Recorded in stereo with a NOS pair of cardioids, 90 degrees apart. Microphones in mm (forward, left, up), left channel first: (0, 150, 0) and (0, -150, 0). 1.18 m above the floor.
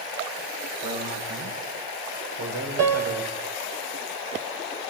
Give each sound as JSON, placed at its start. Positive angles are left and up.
{"t": 0.8, "sound": "a man speaking", "azimuth_deg": -70, "distance_m": 8.5}
{"t": 2.8, "sound": "a piano", "azimuth_deg": -50, "distance_m": 4.0}